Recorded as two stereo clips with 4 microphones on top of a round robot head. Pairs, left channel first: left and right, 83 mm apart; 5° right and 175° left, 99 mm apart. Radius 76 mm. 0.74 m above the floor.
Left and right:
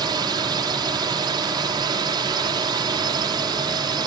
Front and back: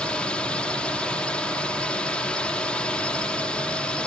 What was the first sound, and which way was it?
A drone, 80° right.